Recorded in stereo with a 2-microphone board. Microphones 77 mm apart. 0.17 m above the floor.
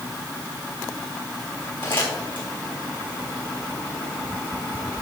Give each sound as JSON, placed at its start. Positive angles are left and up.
{"t": 1.8, "sound": "crumpling", "side_deg": 85, "distance_m": 3.5}